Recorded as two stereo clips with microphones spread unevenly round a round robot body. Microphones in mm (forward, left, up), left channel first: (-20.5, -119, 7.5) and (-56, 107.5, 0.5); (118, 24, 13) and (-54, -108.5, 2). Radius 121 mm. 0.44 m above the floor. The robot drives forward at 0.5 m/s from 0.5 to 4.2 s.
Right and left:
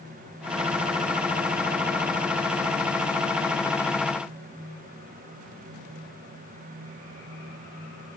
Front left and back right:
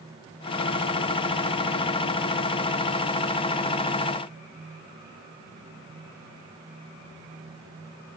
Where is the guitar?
I don't hear a guitar.